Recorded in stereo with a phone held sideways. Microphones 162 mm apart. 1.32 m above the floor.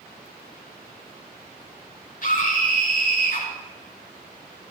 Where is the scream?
60° left (ahead or behind), 5.5 m.